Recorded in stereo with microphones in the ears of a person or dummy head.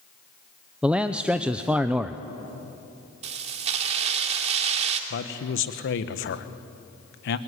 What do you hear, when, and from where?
0.8 s a man speaking: 5° right (ahead or behind), 0.6 m
3.2 s keys jangling: 35° right (ahead or behind), 2.5 m
5.1 s a man speaking: 60° left (ahead or behind), 1.3 m